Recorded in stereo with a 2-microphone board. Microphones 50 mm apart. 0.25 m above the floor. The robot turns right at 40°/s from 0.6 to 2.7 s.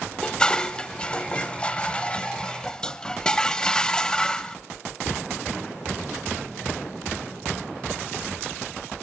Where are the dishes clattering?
15° left (ahead or behind), 0.6 m.